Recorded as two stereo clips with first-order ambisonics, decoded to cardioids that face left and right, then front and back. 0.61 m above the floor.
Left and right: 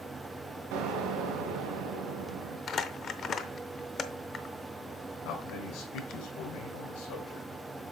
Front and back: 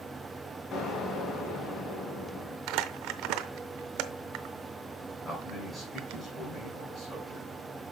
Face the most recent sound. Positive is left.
turn(degrees=80)